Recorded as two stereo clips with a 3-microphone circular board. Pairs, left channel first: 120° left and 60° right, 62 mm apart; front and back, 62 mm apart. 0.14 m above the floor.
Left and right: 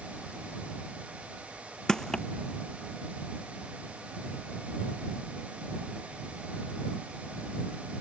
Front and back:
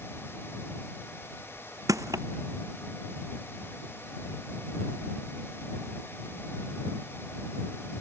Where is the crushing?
160° right.